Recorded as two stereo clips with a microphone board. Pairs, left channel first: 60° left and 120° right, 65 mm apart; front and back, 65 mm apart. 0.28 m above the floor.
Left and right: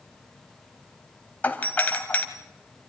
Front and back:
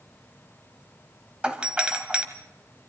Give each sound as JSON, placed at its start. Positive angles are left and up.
{"t": 1.4, "sound": "a doorbell", "azimuth_deg": 115, "distance_m": 1.7}